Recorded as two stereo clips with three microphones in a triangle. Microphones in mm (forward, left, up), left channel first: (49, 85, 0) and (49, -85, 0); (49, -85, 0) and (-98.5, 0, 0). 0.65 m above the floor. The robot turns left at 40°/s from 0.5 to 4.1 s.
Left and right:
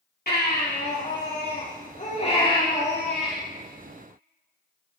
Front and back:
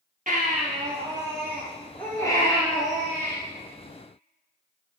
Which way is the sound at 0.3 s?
110° left.